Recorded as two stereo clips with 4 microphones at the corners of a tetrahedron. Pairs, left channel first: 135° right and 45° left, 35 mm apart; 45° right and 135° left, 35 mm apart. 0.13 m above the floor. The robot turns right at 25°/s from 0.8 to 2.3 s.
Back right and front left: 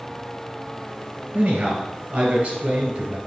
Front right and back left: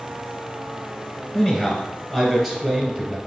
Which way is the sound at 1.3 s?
20° left.